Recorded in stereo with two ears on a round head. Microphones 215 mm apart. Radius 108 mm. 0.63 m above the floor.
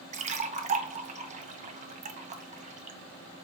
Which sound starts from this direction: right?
A splash, at 0.1 s.